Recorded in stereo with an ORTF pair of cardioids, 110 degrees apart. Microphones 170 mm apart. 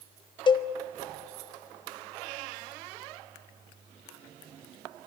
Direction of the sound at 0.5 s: 30° left.